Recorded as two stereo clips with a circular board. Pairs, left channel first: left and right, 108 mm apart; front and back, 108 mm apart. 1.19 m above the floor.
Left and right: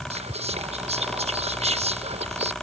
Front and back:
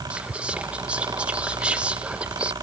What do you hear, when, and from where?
0.1 s whispering: 100° right